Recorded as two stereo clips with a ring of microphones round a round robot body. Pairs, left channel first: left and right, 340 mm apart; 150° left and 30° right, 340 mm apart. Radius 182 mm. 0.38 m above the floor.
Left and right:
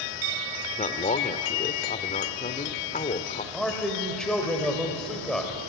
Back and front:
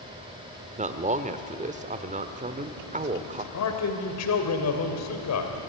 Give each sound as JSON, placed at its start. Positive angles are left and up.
{"t": 0.8, "sound": "a man speaking", "azimuth_deg": 30, "distance_m": 1.1}
{"t": 3.5, "sound": "a man speaking", "azimuth_deg": 180, "distance_m": 2.5}